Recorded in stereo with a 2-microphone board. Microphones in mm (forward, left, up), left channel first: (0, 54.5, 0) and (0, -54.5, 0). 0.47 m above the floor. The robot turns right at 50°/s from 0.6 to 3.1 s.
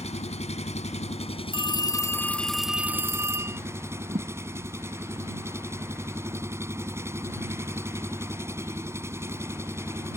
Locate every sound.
0.0 s an engine running: 80° left; by 10.2 s 155° right
1.5 s a phone ringing: 130° left; by 3.6 s 155° right
4.1 s a thud: 65° right (ahead or behind)